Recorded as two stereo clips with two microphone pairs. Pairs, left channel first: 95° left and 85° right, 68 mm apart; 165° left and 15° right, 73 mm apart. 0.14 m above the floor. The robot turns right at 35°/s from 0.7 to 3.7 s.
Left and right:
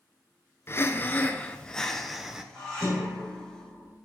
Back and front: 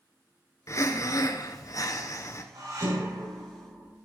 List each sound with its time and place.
0.7 s breathing: 135° left, 0.8 m; by 2.4 s 165° right, 0.8 m
2.5 s dishes clattering: 5° left, 5 m; by 3.9 s 45° left, 5 m